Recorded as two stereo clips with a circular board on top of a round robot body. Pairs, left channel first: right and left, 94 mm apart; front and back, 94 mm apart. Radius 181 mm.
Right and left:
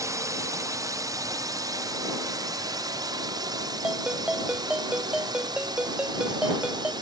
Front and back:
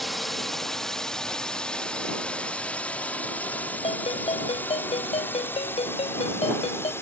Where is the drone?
90° left; by 7.0 s 60° left.